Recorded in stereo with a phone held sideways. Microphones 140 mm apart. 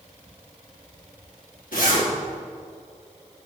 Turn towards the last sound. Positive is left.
turn(degrees=80)